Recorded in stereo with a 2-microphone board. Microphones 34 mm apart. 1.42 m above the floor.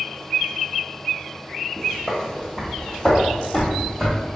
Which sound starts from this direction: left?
Footsteps, at 1.8 s.